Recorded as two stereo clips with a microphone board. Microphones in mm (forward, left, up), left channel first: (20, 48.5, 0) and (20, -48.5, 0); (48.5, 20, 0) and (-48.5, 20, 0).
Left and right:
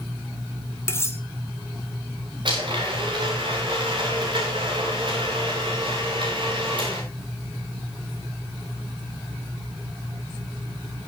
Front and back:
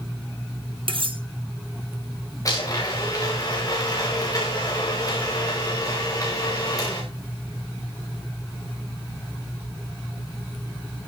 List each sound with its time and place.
0.9 s cutlery clinking: 150° left, 2 m
2.5 s a blender: 55° right, 8.5 m